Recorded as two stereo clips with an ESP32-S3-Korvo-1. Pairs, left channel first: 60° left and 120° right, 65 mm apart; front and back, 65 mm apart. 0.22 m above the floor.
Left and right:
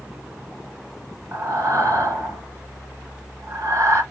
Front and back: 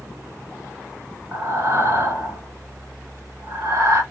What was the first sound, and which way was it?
Breathing, 150° right.